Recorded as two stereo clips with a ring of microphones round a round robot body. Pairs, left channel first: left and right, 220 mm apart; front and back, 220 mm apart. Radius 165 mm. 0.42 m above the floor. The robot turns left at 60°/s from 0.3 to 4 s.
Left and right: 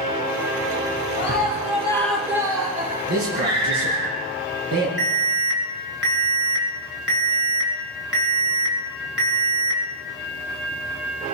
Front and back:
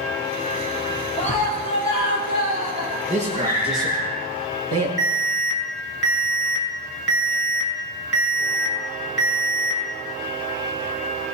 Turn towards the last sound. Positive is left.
turn(degrees=-130)